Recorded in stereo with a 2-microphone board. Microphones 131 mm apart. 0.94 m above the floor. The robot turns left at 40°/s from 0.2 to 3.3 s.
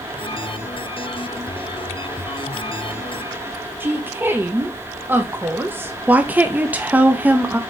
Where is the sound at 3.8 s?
15° right (ahead or behind), 0.6 m.